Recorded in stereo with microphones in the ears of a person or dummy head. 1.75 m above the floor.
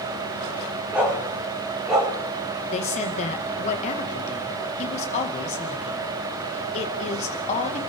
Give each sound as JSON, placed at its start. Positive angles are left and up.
{"t": 0.9, "sound": "a dog barking", "side_deg": -5, "distance_m": 7.0}
{"t": 2.7, "sound": "a woman speaking", "side_deg": 40, "distance_m": 2.0}